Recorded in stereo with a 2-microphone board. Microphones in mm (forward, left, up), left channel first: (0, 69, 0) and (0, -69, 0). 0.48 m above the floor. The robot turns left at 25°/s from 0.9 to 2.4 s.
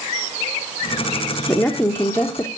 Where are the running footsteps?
No running footsteps in this recording.